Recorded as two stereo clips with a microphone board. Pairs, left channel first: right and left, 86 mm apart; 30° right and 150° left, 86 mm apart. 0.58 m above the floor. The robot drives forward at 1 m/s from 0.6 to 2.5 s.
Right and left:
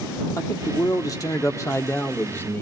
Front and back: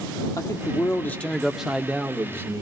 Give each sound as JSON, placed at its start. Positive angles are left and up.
{"t": 0.4, "sound": "a man speaking", "azimuth_deg": -55, "distance_m": 1.1}